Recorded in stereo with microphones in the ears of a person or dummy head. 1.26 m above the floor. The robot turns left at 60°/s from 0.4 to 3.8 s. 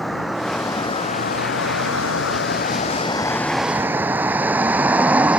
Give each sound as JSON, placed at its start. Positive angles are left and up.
{"t": 0.0, "sound": "a vehicle", "side_deg": 0}